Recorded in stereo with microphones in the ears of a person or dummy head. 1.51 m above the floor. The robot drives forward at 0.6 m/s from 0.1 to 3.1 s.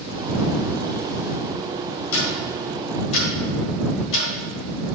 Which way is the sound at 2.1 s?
75° left (ahead or behind).